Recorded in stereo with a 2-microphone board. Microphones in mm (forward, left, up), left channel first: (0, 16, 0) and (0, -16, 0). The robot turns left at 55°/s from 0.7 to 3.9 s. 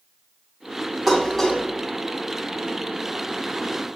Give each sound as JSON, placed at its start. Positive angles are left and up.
{"t": 1.1, "sound": "dishes clattering", "side_deg": -15, "distance_m": 1.2}